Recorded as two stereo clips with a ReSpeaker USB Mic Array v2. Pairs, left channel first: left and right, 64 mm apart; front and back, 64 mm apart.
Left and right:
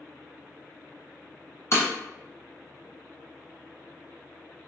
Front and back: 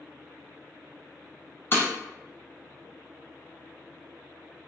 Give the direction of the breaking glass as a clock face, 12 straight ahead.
10 o'clock.